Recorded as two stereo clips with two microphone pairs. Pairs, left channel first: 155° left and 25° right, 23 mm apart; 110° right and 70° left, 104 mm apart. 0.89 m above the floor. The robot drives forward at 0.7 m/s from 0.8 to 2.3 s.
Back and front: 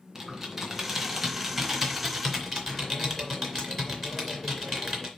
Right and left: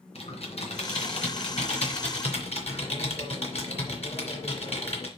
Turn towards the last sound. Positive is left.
turn(degrees=-125)